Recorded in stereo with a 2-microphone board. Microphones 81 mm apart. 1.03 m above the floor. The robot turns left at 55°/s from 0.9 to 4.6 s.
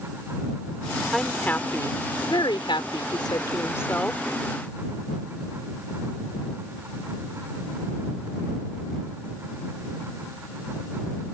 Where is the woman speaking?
Straight behind; by 4.2 s 10° left.